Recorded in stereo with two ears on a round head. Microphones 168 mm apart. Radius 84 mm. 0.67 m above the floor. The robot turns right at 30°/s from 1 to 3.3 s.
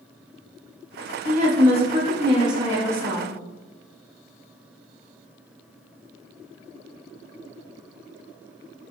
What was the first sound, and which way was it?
A woman speaking, 70° right.